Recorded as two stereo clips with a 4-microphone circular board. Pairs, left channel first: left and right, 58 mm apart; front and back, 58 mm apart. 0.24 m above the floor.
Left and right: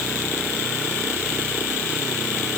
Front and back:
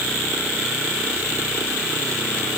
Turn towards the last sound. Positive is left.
No sound to turn to.